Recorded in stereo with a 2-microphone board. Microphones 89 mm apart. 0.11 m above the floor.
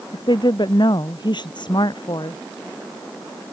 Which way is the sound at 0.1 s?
55° left (ahead or behind).